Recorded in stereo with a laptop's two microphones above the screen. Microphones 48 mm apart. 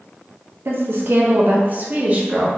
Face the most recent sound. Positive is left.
turn(degrees=-25)  # may be behind; listen again after turning